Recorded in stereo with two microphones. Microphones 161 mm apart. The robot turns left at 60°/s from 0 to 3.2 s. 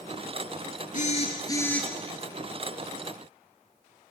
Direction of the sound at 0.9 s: 60° left.